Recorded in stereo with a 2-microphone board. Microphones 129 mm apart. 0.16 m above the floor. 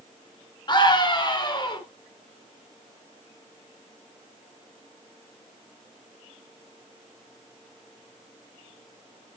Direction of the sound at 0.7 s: 35° left (ahead or behind).